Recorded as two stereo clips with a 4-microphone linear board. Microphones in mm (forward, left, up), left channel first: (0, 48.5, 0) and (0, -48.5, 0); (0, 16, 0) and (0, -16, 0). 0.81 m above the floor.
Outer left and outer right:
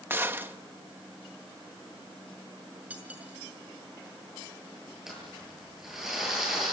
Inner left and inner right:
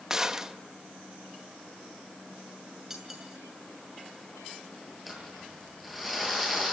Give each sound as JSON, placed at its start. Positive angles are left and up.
{"t": 0.1, "sound": "a gunshot", "side_deg": -20, "distance_m": 1.2}
{"t": 2.9, "sound": "cutlery clinking", "side_deg": -15, "distance_m": 5.5}
{"t": 5.1, "sound": "crumpling", "side_deg": -5, "distance_m": 8.5}